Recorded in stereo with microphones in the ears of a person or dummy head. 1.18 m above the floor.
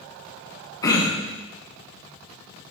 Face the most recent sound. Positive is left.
turn(degrees=20)  # may be behind; listen again after turning